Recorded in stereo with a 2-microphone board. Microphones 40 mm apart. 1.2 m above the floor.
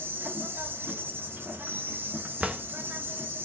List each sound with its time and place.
0.0 s an insect: 50° right (ahead or behind), 1.1 m
2.4 s a drawer: 30° right (ahead or behind), 0.5 m